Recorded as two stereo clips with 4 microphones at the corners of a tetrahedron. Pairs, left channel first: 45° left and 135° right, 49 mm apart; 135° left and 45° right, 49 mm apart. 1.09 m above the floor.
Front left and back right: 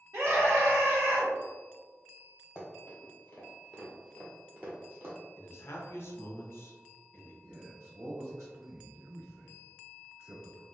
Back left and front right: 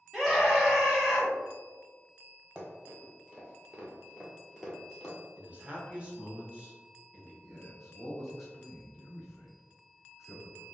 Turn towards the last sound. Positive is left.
turn(degrees=-135)